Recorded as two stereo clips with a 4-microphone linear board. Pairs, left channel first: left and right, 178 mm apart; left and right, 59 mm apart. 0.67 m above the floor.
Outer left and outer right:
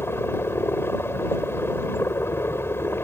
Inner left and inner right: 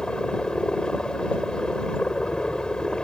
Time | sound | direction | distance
0.0 | a helicopter | 15° left (ahead or behind) | ?